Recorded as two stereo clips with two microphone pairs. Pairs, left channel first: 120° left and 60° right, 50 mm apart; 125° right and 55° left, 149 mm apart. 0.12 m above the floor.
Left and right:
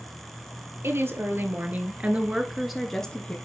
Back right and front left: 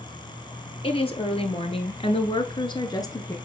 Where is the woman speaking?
80° right, 2.5 m; by 3.4 s 175° left, 1.6 m.